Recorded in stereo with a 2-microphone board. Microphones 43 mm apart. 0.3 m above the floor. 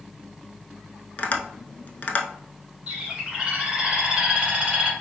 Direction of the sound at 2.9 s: 20° right (ahead or behind).